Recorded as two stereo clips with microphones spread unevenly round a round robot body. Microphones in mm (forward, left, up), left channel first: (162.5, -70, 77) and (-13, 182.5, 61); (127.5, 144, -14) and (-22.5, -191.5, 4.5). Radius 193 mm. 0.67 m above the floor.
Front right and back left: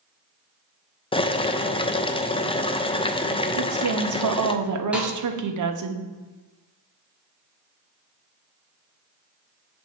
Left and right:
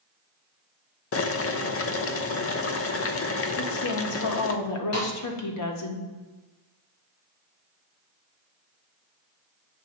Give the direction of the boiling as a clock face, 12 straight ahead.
11 o'clock.